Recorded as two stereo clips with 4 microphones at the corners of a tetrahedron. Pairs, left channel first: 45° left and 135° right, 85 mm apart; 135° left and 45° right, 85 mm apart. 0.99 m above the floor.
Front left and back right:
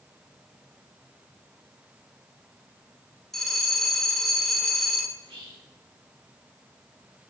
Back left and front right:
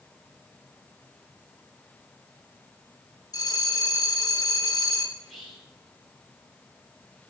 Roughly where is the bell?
Behind left.